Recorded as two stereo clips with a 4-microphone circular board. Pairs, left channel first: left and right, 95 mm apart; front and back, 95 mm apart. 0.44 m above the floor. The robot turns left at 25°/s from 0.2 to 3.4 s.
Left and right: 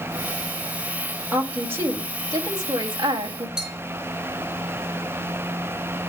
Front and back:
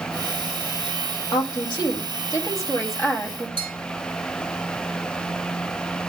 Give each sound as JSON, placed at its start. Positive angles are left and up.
{"t": 1.3, "sound": "a woman speaking", "azimuth_deg": -20, "distance_m": 2.5}
{"t": 3.6, "sound": "a bell", "azimuth_deg": -5, "distance_m": 3.5}